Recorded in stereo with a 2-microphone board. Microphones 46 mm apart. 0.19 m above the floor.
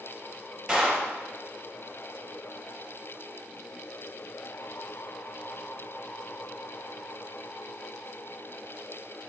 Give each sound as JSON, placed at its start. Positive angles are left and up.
{"t": 0.7, "sound": "a clap", "side_deg": -5, "distance_m": 2.5}